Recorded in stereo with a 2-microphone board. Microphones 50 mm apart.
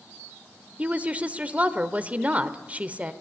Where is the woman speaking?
30° right (ahead or behind), 1.1 m.